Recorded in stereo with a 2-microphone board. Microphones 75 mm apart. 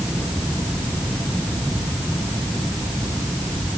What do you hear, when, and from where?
Only background noise.